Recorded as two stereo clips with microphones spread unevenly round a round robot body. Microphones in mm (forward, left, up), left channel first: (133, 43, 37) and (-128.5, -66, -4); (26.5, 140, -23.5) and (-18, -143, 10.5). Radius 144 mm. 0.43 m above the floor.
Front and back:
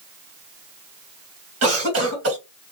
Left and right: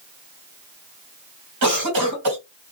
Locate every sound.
1.6 s a cough: 125° right, 2 m